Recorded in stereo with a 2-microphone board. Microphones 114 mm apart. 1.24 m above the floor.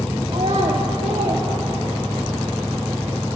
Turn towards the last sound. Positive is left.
turn(degrees=-50)  # may be behind; listen again after turning